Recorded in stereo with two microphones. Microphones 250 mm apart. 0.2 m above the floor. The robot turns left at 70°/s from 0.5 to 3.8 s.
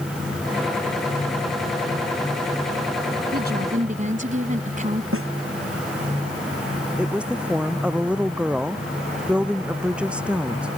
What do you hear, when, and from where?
3.3 s a woman speaking: 95° right; by 5.0 s 130° right
5.1 s a snare drum: 60° right (ahead or behind)
7.0 s a woman speaking: 5° right (ahead or behind)